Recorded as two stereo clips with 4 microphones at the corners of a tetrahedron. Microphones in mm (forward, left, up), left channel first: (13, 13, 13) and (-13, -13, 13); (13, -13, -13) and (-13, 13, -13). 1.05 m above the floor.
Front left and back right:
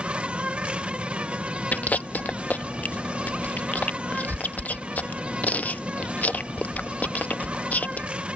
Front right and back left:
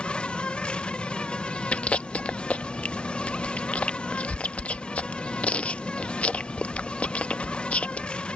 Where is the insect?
90° right.